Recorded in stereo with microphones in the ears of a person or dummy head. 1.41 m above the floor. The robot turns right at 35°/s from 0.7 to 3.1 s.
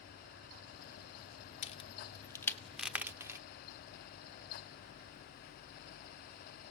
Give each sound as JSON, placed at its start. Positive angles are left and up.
{"t": 1.6, "sound": "a crack", "side_deg": 35, "distance_m": 0.9}